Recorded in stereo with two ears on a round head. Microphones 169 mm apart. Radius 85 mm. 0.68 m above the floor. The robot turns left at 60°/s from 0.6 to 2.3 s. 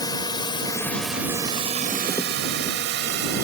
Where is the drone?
20° left (ahead or behind); by 3.4 s 60° right (ahead or behind).